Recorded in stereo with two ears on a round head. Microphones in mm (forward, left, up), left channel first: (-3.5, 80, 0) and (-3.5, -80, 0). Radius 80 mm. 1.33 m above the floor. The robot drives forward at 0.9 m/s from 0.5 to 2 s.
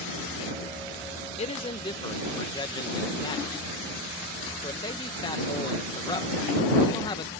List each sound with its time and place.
1.4 s a man speaking: 40° left (ahead or behind); by 7.3 s 25° left (ahead or behind)